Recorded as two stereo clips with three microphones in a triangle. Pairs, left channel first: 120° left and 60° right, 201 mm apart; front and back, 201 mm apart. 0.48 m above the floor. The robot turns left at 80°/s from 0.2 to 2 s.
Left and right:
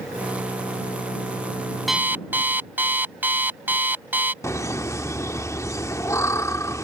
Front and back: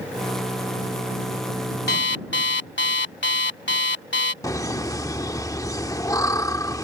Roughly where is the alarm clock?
Ahead left.